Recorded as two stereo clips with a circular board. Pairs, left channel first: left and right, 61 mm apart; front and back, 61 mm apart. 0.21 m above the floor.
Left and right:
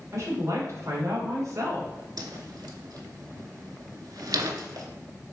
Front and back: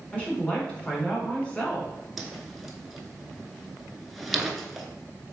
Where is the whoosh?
95° right, 0.6 m.